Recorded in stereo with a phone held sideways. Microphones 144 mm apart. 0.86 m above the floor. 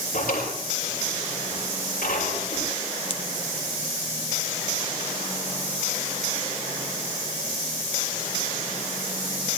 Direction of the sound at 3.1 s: 35° left (ahead or behind).